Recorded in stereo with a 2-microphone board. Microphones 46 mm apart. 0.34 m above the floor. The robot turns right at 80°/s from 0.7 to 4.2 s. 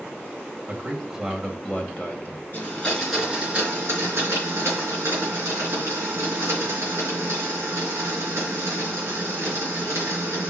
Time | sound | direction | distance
0.7 | a man speaking | 45° right | 1.9 m
2.5 | a blender | 135° left | 4.5 m